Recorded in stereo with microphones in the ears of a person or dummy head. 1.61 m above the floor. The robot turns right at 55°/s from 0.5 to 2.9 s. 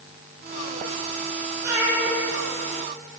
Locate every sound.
1.6 s a cat meowing: 10° right (ahead or behind), 0.8 m; by 2.2 s 15° right (ahead or behind), 0.8 m